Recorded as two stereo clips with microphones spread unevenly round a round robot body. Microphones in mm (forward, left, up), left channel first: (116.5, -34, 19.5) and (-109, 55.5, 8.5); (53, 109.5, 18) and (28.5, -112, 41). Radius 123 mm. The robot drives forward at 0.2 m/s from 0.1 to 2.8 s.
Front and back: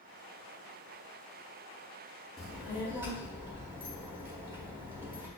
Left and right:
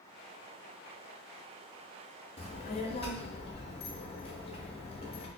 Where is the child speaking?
70° left, 0.6 m; by 5.3 s 90° left, 0.5 m.